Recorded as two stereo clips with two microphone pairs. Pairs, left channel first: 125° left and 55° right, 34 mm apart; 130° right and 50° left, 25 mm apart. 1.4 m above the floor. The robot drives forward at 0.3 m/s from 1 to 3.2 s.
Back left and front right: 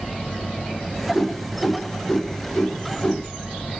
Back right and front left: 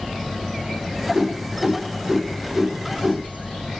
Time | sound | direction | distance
1.1 | a whoosh | 30° left | 0.9 m